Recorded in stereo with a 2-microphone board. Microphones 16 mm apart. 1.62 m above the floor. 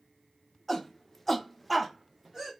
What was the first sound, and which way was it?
A shout, 15° left (ahead or behind).